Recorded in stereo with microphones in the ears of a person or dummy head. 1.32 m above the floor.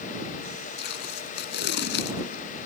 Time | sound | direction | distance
0.8 | tape being pulled | 55° left (ahead or behind) | ?